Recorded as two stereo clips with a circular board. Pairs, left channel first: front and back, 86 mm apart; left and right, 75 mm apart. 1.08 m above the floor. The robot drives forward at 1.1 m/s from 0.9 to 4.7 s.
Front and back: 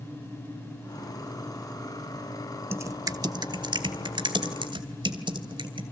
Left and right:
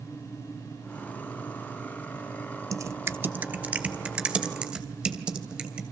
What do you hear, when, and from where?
2.7 s typing on a keyboard: 120° right, 0.8 m; by 5.8 s 170° right, 2.5 m